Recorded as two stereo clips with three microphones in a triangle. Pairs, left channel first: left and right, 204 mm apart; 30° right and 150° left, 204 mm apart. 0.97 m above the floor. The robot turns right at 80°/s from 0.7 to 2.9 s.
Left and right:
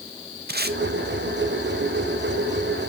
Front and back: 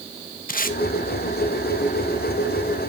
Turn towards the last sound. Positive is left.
turn(degrees=110)